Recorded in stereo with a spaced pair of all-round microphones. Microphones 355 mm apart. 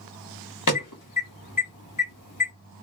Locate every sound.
0.7 s an alarm: 60° left (ahead or behind), 1.2 m